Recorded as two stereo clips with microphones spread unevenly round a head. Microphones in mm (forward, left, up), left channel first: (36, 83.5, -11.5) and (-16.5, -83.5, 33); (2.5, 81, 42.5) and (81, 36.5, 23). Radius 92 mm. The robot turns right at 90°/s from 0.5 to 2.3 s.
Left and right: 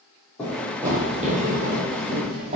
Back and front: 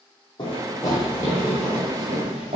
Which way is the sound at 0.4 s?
165° left.